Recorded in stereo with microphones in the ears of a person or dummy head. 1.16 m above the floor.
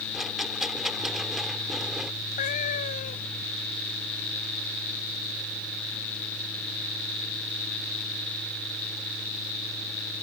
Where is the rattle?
5° left (ahead or behind).